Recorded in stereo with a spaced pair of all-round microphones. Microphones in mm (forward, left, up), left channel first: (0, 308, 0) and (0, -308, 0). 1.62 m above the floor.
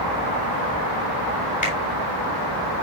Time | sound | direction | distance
1.6 | a finger snap | 10° left (ahead or behind) | 5 m